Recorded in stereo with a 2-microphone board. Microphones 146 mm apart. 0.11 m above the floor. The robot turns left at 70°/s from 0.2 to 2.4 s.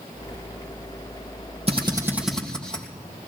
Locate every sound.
1.7 s a drill: 45° right (ahead or behind), 3 m; by 2.9 s 5° left (ahead or behind), 3 m